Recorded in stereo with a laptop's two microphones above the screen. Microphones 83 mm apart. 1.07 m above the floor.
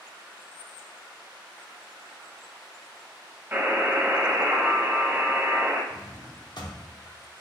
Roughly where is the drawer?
Left.